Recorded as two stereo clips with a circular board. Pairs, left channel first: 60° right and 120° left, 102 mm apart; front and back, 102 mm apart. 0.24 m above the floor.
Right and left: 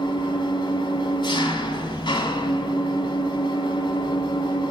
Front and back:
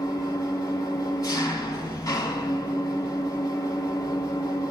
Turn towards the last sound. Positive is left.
turn(degrees=-40)